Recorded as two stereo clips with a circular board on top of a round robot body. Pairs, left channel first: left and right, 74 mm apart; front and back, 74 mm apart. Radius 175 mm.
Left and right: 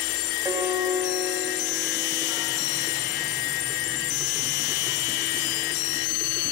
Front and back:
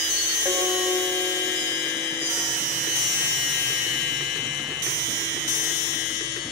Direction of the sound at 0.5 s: 135° right.